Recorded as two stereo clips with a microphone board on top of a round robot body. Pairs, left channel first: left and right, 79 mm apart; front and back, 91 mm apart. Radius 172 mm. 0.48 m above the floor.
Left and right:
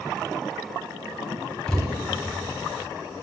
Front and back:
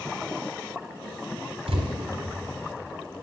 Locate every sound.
1.7 s a thud: 175° left, 1.9 m